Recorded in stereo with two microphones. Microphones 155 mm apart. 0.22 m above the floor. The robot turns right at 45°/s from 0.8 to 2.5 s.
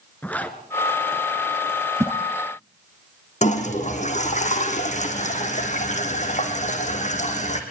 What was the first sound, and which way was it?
A zipper, 10° left (ahead or behind).